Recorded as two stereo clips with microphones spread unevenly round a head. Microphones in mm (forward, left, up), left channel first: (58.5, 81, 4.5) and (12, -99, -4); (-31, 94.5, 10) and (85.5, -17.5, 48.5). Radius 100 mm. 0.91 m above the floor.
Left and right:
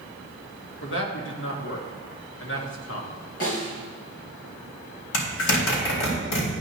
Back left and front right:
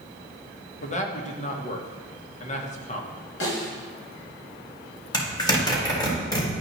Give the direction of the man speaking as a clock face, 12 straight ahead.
9 o'clock.